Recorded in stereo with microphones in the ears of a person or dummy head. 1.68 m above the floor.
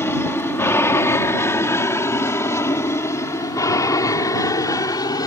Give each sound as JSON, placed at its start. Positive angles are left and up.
{"t": 0.0, "sound": "an aircraft", "side_deg": 15}